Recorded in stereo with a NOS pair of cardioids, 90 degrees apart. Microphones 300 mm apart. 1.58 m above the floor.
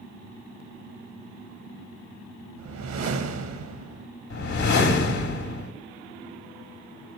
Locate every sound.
2.6 s a whoosh: 65° right, 1.7 m
4.3 s a whoosh: 70° left, 2.5 m